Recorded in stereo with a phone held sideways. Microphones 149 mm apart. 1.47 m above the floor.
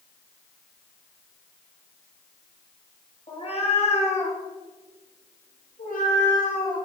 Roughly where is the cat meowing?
Left.